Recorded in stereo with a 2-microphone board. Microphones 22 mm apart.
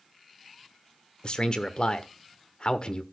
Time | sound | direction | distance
1.2 | a man speaking | 50° left (ahead or behind) | 1.2 m